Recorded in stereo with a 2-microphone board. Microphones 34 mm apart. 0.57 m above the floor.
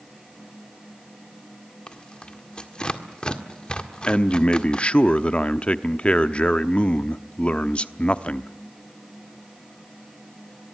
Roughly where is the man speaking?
Left.